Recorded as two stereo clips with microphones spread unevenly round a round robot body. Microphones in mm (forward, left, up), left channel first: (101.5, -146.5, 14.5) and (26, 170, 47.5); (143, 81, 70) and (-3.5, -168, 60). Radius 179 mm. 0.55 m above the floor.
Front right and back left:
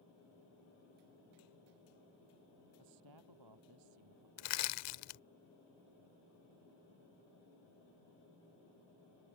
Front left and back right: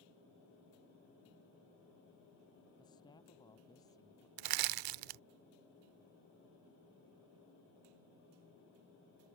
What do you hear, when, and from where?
2.8 s a man speaking: 140° left
4.4 s crushing: 125° right